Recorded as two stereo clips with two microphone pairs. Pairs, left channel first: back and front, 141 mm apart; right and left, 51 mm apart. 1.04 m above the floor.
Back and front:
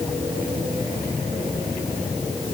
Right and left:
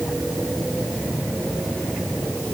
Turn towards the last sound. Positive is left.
No sound to turn to.